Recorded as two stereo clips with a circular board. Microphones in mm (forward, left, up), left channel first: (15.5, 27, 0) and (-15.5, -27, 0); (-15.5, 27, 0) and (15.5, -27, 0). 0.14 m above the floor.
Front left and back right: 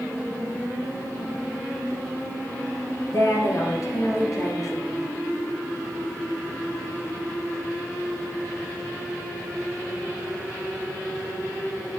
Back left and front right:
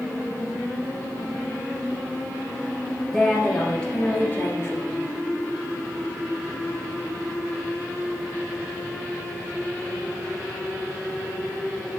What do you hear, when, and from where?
3.1 s a woman speaking: 30° left, 2 m; by 5.0 s 80° left, 2.0 m